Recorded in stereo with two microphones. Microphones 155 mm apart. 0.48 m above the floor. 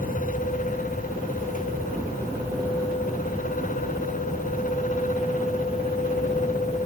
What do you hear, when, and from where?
Only background noise.